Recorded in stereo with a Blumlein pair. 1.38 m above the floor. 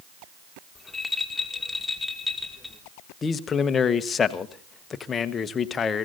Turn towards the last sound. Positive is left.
turn(degrees=20)